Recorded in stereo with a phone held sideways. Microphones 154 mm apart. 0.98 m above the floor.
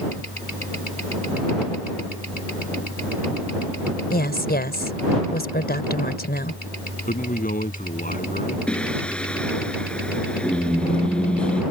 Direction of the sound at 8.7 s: 5° left (ahead or behind).